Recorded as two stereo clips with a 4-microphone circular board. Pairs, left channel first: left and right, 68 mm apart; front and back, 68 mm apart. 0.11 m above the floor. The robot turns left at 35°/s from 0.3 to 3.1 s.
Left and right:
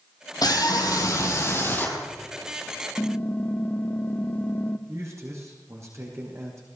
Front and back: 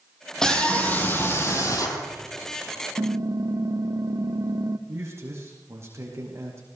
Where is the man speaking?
135° right, 5.5 m.